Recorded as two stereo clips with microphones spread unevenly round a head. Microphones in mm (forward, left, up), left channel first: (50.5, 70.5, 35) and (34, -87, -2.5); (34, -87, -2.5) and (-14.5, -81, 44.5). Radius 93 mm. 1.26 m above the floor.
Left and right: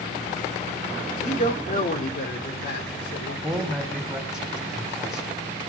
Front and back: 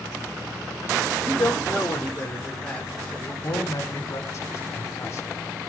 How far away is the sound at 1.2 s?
About 4 m.